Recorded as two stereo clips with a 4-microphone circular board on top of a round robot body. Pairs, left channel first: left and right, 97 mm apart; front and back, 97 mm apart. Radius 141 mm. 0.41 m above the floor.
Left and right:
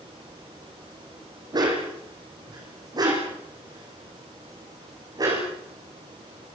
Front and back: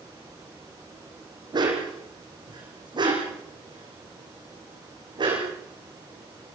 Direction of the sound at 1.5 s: 135° right.